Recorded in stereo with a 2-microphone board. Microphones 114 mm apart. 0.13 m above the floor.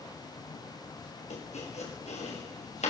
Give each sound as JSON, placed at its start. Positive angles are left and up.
{"t": 1.3, "sound": "chopping", "side_deg": 80, "distance_m": 8.5}